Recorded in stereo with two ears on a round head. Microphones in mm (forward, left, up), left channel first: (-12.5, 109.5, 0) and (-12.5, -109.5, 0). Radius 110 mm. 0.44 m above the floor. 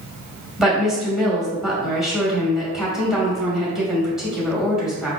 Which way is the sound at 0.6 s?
Centre (ahead or behind).